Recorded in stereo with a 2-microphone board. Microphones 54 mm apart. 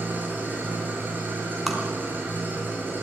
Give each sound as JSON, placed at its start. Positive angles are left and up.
{"t": 0.0, "sound": "an engine running", "side_deg": -40, "distance_m": 6.0}
{"t": 1.7, "sound": "tapping", "side_deg": 0, "distance_m": 4.0}